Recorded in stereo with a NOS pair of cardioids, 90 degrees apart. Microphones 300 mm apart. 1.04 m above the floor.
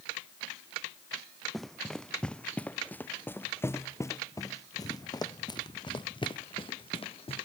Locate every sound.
1.5 s running footsteps: straight ahead; by 7.5 s 20° left